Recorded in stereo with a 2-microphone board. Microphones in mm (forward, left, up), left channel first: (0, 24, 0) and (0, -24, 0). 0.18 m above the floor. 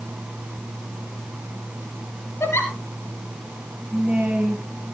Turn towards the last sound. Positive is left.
turn(degrees=-30)  # may be behind; listen again after turning